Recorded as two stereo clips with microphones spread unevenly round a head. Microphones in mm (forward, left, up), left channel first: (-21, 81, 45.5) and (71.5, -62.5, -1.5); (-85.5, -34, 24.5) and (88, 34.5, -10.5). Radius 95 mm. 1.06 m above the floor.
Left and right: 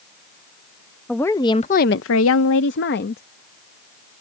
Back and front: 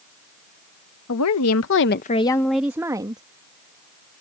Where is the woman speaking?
150° right; by 3.2 s 90° left.